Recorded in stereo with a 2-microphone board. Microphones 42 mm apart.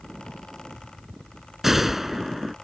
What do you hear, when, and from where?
1.6 s a gunshot: 5° right (ahead or behind)